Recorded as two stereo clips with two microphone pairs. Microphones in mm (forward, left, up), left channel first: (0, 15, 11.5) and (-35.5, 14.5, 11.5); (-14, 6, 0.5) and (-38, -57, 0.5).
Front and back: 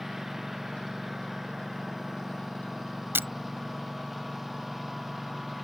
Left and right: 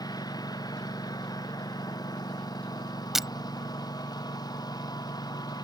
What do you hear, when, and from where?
0.0 s a lawn mower: 95° left
3.1 s breaking glass: 165° left